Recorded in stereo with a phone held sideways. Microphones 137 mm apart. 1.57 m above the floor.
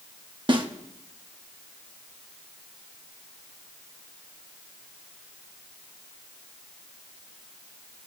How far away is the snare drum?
About 1.0 m.